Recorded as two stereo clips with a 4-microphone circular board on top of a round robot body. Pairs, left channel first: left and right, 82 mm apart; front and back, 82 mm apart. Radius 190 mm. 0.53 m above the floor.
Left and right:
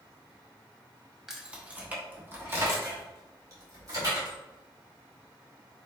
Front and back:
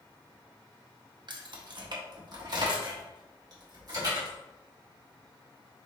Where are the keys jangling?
175° right, 1.1 m; by 4.3 s 135° right, 2.5 m.